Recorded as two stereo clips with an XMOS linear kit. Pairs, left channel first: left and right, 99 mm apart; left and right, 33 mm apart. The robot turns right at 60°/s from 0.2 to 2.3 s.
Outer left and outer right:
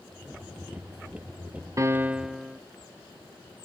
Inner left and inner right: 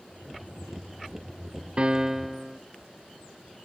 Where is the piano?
35° right, 0.5 m; by 2.6 s 5° right, 0.5 m.